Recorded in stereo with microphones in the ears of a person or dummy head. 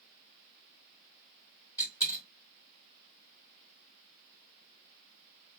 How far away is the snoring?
I don't hear snoring.